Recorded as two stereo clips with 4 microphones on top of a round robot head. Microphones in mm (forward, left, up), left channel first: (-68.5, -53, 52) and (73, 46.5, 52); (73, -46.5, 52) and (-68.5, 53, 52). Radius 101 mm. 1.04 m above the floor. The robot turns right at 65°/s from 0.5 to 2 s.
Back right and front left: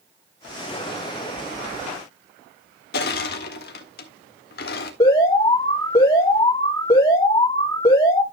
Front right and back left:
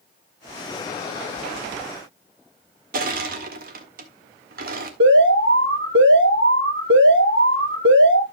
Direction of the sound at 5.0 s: 145° left.